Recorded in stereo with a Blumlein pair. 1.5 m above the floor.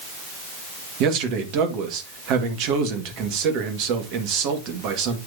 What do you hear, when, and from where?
1.0 s a man speaking: 40° right, 2 m